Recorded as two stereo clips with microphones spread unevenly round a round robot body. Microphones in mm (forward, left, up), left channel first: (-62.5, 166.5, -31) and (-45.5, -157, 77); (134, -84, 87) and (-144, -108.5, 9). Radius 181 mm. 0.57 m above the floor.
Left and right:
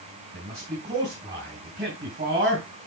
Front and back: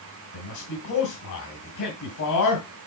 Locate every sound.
0.3 s a man speaking: 15° right, 3.5 m